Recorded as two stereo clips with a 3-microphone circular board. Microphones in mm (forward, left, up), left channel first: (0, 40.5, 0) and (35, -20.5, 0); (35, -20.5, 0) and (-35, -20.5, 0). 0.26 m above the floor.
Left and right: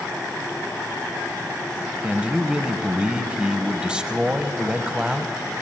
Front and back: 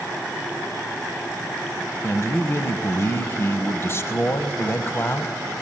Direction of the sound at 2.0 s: 5° left.